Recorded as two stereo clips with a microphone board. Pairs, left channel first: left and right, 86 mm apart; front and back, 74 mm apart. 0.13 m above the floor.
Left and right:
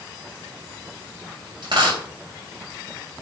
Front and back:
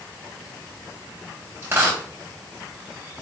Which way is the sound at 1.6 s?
120° right.